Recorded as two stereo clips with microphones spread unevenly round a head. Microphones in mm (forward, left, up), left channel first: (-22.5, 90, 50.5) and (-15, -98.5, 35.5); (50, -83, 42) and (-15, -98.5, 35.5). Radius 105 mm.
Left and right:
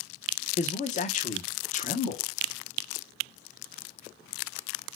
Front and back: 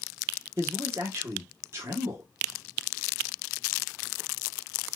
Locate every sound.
0.6 s a man speaking: 145° left, 1.0 m